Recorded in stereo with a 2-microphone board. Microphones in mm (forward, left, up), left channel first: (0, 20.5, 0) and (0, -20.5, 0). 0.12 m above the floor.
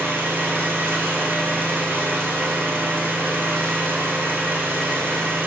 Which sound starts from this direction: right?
An engine running, at 0.0 s.